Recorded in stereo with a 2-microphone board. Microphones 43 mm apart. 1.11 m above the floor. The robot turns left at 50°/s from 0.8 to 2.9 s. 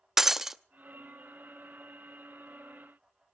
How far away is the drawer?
I don't hear a drawer.